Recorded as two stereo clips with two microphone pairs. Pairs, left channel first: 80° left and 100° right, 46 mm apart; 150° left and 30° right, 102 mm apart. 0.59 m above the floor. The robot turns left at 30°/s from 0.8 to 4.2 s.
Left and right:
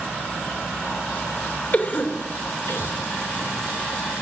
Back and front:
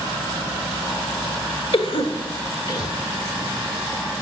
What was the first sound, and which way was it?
A cough, 130° left.